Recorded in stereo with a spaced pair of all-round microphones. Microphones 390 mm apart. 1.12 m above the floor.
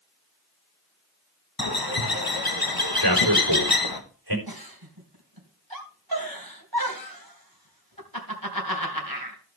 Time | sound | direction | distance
1.6 | a bird | 65° left (ahead or behind) | 1.5 m
3.0 | a man speaking | 80° right | 4 m
4.5 | a giggle | 65° right (ahead or behind) | 3 m